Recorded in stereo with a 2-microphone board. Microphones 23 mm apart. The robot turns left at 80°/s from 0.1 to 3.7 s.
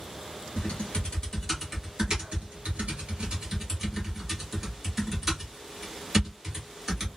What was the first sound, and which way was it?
Typing on a keyboard, 65° left (ahead or behind).